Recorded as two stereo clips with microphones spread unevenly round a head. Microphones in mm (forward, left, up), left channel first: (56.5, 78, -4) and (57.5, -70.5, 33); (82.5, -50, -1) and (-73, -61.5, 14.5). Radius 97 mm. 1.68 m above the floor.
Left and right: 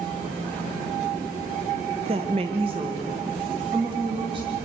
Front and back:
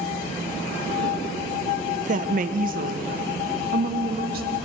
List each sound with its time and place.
2.0 s a woman speaking: 140° right, 1.1 m; by 4.6 s 155° right, 3 m